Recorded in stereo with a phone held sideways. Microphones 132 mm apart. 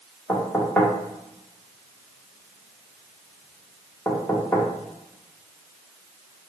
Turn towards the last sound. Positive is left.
turn(degrees=10)  # may be behind; listen again after turning